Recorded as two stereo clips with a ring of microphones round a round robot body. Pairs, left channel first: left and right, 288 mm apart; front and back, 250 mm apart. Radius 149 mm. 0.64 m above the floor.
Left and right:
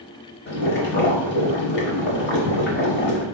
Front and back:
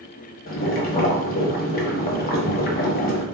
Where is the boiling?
45° left, 1.1 m.